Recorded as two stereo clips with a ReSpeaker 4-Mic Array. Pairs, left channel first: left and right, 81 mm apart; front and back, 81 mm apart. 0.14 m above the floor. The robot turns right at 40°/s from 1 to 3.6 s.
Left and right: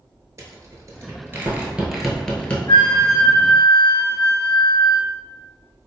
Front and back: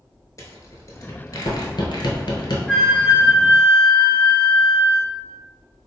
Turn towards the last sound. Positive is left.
turn(degrees=135)